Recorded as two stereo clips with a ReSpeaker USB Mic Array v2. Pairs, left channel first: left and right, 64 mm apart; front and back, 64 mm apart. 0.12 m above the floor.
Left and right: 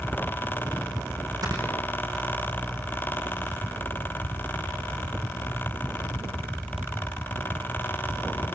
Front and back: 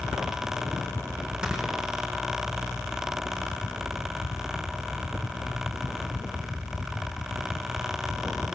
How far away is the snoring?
About 6.5 m.